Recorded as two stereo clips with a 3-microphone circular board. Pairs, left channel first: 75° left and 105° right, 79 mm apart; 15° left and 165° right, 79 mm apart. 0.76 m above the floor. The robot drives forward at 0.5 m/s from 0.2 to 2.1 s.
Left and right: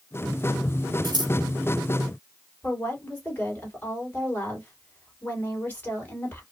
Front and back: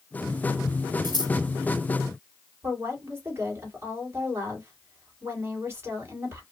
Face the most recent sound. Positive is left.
turn(degrees=140)